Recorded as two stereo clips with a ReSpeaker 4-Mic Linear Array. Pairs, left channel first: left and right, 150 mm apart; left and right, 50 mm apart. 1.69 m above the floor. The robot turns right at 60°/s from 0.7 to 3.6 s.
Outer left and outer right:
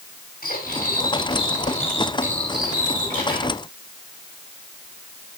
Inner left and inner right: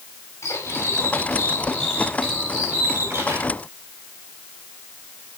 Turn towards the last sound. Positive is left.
turn(degrees=-85)